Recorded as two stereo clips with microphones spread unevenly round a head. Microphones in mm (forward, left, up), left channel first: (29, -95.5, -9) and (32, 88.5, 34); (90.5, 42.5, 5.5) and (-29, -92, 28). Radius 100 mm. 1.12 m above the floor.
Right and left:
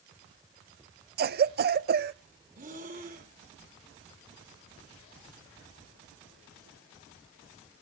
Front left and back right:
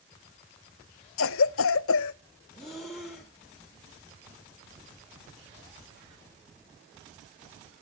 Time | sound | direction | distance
1.2 | a cough | 50° left | 0.6 m
2.5 | breathing | 140° left | 1.8 m